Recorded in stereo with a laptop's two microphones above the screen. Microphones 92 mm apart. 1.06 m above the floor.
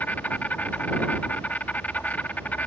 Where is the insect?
20° left (ahead or behind).